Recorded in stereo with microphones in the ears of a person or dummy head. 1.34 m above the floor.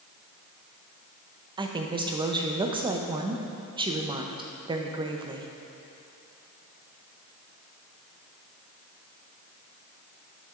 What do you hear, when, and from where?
1.6 s a woman speaking: 20° right (ahead or behind), 0.6 m